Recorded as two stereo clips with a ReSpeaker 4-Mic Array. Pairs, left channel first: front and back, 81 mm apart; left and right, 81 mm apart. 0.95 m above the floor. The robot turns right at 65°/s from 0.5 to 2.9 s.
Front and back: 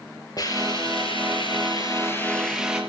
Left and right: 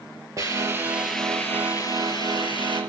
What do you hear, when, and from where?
0.4 s a hiss: 40° right, 4.5 m; by 2.8 s 110° left, 4.5 m